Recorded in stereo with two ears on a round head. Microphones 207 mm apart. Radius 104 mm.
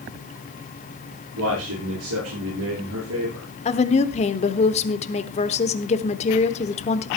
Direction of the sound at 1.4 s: 70° right (ahead or behind).